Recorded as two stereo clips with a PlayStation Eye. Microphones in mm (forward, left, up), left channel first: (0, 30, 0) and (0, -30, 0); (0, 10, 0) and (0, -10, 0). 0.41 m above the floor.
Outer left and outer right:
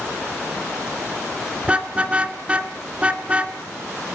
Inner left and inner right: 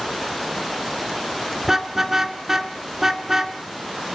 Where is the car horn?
20° right (ahead or behind), 2.5 m.